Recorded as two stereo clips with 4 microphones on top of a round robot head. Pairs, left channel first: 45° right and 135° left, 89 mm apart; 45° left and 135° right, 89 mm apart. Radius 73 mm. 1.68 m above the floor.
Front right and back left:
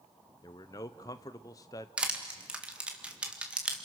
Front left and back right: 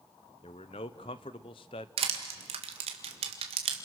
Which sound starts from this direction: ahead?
A man speaking, at 0.4 s.